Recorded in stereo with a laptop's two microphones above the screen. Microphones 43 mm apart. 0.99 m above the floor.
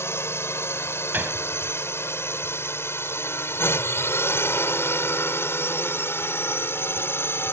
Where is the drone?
75° left (ahead or behind); by 7.5 s 65° left (ahead or behind).